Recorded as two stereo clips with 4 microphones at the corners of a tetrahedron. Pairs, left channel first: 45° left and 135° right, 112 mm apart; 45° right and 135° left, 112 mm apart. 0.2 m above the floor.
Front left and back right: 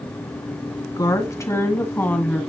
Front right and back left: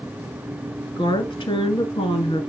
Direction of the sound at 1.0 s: 5° right.